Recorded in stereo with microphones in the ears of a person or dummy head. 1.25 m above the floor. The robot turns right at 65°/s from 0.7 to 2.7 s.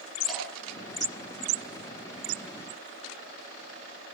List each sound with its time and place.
0.3 s dripping: 5° left (ahead or behind), 6.5 m